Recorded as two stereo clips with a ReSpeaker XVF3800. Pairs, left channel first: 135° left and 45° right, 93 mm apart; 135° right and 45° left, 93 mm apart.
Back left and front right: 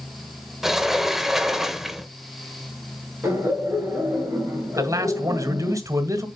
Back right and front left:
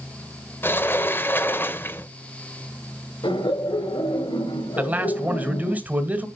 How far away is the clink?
No clink in this recording.